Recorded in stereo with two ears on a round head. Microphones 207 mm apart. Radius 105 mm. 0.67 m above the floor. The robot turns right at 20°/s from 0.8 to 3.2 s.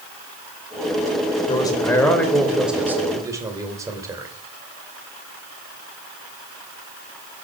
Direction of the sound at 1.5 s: 160° left.